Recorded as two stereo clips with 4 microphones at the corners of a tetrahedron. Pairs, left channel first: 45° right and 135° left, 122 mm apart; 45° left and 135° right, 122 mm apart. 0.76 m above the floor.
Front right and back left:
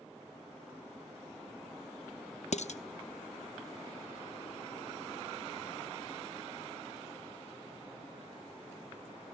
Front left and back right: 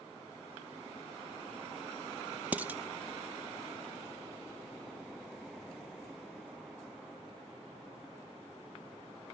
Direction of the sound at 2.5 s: 60° right.